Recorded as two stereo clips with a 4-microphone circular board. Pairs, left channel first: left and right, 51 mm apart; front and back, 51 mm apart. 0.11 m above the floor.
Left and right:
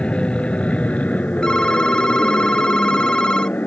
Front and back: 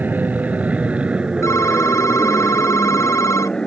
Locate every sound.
0.0 s an aircraft: 150° left; by 3.7 s 70° left
1.4 s a phone ringing: 20° left